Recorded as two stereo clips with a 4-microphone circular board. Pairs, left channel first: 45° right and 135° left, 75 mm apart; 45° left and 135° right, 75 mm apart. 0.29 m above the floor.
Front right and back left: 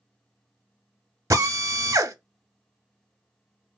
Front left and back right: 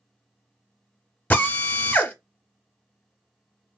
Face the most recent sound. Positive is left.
turn(degrees=105)